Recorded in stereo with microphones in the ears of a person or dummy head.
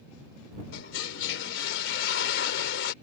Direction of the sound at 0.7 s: 75° left (ahead or behind).